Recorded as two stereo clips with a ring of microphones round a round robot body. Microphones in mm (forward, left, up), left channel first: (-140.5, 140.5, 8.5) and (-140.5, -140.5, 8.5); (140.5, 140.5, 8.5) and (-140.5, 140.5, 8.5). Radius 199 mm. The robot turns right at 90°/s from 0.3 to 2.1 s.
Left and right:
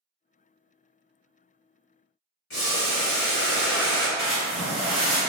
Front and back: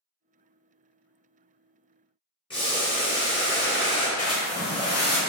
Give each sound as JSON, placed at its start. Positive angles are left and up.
{"t": 2.5, "sound": "boiling", "azimuth_deg": 70, "distance_m": 1.3}
{"t": 4.2, "sound": "a splash", "azimuth_deg": 25, "distance_m": 1.2}